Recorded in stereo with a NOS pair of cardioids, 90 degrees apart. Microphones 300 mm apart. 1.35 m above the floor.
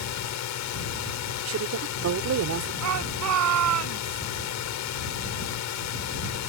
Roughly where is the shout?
Ahead right.